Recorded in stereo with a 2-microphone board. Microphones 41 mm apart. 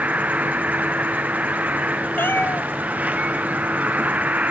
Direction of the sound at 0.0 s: 40° right (ahead or behind).